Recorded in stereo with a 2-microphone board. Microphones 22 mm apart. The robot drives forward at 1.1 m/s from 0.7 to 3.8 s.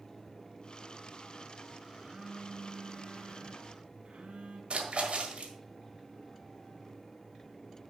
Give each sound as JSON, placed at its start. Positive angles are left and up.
{"t": 1.9, "sound": "a phone buzzing", "side_deg": -40, "distance_m": 2.0}
{"t": 4.7, "sound": "a splash", "side_deg": -60, "distance_m": 1.6}